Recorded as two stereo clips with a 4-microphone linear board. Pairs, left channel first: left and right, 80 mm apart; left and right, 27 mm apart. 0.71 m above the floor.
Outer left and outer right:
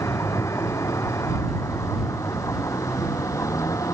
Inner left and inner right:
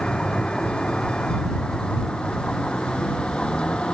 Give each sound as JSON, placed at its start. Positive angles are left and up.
{"t": 0.0, "sound": "a vehicle", "side_deg": 40}